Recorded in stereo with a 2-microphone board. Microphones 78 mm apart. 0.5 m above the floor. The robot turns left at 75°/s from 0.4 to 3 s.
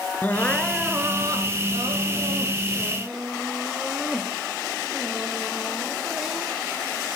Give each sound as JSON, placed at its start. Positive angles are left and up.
{"t": 0.2, "sound": "crying", "azimuth_deg": 20, "distance_m": 2.5}